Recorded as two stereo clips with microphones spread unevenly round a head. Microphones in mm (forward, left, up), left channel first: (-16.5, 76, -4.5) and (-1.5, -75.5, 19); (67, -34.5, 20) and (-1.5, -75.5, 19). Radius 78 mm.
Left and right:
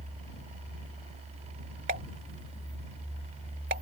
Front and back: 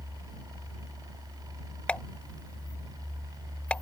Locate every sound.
1.9 s a pop: 45° right